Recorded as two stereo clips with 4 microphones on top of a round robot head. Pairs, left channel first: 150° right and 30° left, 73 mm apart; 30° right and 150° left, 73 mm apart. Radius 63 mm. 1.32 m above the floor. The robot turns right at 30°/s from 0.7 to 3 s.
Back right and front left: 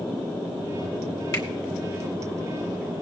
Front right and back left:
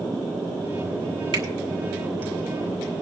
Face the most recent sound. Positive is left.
turn(degrees=-145)